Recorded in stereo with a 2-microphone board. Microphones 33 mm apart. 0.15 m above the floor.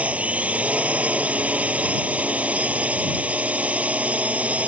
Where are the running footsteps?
I don't hear running footsteps.